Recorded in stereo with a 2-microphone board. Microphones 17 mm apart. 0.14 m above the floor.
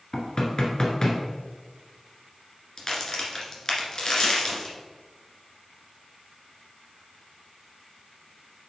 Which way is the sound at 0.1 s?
35° left (ahead or behind).